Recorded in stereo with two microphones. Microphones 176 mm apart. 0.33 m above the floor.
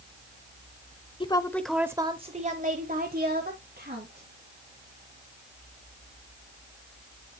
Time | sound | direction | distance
1.2 | a woman speaking | 30° left (ahead or behind) | 0.9 m